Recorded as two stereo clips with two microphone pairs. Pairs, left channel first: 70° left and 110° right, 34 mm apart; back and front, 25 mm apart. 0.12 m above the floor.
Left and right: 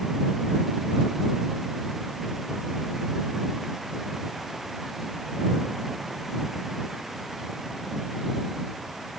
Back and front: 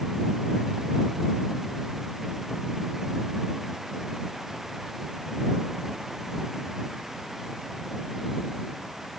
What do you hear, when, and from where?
Only background noise.